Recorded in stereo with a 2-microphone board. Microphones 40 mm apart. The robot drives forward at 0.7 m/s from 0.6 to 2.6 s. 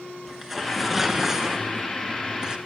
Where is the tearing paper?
10° right (ahead or behind), 2 m; by 2.6 s 25° right (ahead or behind), 0.8 m.